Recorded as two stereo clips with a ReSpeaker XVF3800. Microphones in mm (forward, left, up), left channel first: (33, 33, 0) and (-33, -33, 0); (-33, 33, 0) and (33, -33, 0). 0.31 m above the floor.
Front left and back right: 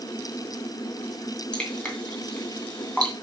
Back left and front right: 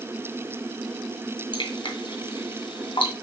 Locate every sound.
1.5 s dripping: 125° left, 2.5 m